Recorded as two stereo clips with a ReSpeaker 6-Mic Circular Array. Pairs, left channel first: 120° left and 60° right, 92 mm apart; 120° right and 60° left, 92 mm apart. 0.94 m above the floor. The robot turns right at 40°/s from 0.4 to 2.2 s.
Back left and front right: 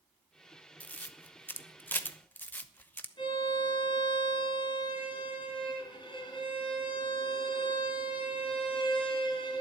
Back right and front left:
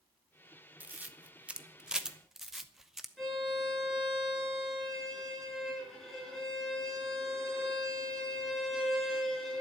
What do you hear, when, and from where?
0.8 s a camera shutter: 85° left, 0.8 m; by 3.1 s 140° left, 0.8 m
3.2 s a violin: 150° left, 4.5 m